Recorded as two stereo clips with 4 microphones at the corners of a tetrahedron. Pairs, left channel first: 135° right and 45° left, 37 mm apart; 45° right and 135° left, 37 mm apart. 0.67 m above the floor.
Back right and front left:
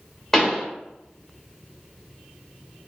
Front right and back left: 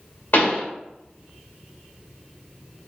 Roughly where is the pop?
Ahead right.